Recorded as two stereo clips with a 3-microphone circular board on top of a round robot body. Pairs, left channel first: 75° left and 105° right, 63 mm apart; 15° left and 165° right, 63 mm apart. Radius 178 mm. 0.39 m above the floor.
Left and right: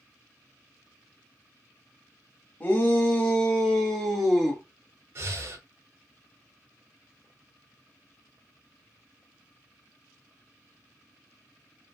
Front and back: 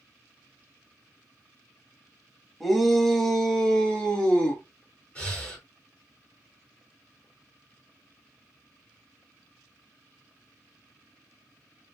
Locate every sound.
2.6 s a shout: 105° left, 1.4 m; by 4.6 s 25° right, 1.4 m
5.2 s breathing: 55° right, 1.3 m